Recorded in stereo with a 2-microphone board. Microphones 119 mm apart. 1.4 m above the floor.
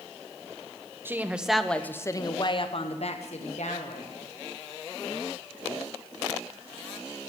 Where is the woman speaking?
20° right (ahead or behind), 0.8 m; by 4.1 s 80° left, 1.4 m.